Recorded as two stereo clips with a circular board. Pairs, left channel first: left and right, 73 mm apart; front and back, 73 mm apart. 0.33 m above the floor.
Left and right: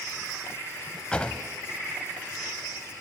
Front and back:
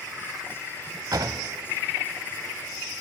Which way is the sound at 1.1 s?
165° left.